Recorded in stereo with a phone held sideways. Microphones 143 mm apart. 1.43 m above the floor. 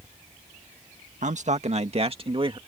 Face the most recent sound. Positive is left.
turn(degrees=-35)  # may be behind; listen again after turning